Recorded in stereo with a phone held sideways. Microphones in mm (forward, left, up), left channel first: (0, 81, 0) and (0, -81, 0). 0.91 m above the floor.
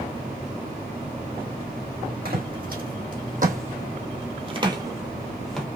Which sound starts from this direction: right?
Footsteps, at 2.2 s.